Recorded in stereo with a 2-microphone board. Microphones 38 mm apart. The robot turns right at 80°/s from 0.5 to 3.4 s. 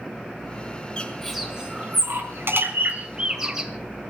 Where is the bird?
25° left (ahead or behind), 2.5 m; by 3.7 s 10° right (ahead or behind), 2.5 m.